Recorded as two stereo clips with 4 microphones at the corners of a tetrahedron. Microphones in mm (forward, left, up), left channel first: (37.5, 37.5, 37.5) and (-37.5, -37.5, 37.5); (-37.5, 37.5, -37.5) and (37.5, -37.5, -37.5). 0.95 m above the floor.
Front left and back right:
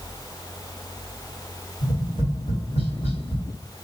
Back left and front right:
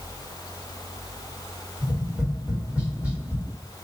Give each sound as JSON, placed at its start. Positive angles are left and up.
{"t": 1.8, "sound": "tapping", "azimuth_deg": 35, "distance_m": 2.5}